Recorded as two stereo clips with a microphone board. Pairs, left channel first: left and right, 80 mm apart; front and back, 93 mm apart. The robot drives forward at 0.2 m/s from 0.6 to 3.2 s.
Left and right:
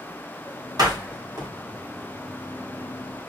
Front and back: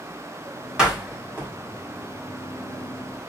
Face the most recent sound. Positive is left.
turn(degrees=-120)